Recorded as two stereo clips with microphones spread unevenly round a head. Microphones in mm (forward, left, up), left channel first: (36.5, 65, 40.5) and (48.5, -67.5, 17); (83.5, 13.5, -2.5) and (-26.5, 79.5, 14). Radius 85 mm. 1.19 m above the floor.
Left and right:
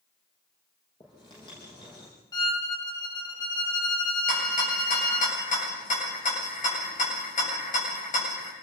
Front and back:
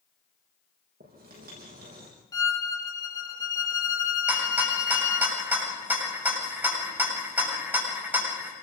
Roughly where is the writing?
Behind.